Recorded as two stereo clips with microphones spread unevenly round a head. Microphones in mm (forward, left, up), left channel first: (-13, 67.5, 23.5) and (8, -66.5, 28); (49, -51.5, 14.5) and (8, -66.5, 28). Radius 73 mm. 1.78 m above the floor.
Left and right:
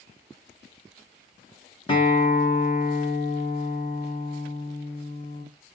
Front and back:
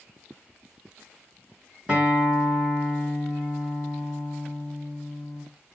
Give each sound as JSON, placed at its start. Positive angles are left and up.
{"t": 1.9, "sound": "a guitar", "azimuth_deg": 145, "distance_m": 2.0}